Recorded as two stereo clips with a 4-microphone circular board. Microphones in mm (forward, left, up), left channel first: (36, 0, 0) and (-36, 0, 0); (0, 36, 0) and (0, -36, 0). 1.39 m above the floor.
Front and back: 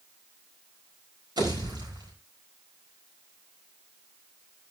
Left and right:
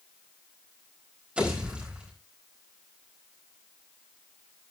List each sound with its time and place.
1.4 s a pop: 165° right, 4.5 m